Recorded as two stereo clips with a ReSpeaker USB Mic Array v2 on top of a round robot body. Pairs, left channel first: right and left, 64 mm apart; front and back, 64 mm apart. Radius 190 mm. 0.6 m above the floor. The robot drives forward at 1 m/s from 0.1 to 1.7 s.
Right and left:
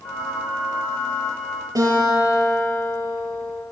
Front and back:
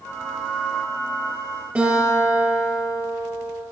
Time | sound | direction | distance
1.8 | a guitar | 115° left | 5 m